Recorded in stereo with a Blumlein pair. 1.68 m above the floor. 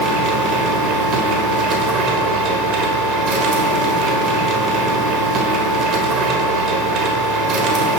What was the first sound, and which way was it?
A machine running, 35° right.